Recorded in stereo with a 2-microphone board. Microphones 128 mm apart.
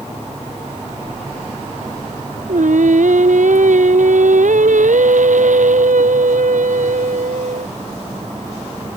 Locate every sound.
2.5 s singing: 80° right